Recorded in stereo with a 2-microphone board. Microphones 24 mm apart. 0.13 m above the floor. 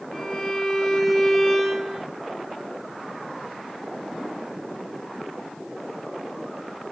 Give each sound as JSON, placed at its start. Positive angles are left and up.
{"t": 0.1, "sound": "a violin", "side_deg": 5, "distance_m": 2.0}